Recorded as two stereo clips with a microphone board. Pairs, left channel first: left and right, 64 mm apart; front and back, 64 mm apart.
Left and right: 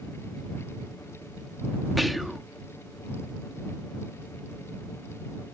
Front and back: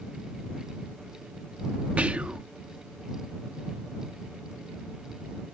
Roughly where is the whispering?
Behind.